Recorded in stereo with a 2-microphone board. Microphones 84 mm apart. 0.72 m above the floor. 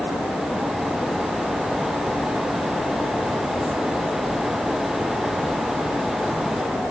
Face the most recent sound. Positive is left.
No sound to turn to.